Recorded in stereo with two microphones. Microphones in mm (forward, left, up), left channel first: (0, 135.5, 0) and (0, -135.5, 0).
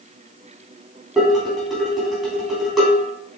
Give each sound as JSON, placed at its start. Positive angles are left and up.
{"t": 1.2, "sound": "dishes clattering", "side_deg": 0, "distance_m": 3.0}